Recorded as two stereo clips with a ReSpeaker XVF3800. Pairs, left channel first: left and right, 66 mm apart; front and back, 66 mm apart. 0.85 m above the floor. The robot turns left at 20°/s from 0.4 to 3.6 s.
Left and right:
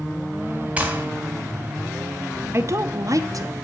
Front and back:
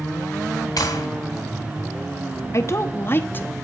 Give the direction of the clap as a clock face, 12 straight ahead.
1 o'clock.